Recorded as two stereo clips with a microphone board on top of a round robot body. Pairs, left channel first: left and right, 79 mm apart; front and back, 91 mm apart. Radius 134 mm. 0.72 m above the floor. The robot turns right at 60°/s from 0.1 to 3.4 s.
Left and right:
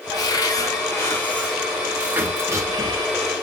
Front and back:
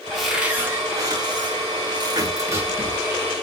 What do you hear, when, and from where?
0.1 s a cupboard door: 85° left, 1.7 m; by 3.1 s 95° right, 1.7 m